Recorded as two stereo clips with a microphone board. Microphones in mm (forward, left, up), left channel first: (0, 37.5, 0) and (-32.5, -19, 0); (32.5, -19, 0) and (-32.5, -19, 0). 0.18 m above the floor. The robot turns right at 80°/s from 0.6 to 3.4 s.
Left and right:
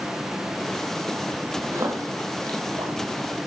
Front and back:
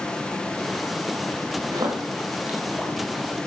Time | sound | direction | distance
1.7 | a splash | 170° right | 3.5 m